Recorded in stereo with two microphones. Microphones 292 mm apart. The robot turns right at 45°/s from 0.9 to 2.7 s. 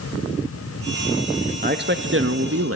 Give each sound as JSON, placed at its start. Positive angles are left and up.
{"t": 1.6, "sound": "a man speaking", "azimuth_deg": -140, "distance_m": 0.6}